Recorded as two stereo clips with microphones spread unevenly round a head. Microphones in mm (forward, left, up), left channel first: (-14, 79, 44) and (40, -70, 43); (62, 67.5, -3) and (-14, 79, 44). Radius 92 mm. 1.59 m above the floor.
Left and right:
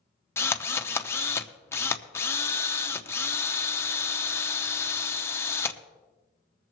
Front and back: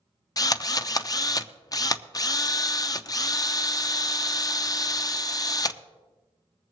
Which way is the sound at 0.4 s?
35° left.